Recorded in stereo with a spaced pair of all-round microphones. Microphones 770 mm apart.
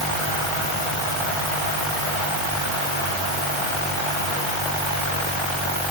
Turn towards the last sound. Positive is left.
No sound to turn to.